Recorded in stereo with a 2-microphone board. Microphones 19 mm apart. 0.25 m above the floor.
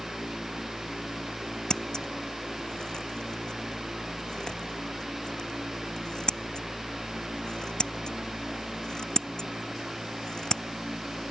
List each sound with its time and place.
1.7 s scissors: 35° left (ahead or behind)